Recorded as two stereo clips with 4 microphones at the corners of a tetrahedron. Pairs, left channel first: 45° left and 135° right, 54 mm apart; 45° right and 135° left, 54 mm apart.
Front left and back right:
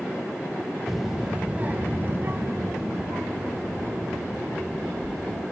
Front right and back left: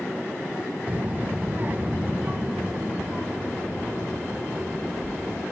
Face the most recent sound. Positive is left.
turn(degrees=-160)